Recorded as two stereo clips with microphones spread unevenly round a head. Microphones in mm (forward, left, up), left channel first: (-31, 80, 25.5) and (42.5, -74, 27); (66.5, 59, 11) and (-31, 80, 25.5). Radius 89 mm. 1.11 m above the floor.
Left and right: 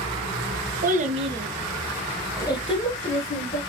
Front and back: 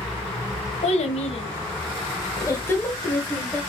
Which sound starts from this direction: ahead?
A child speaking, at 0.8 s.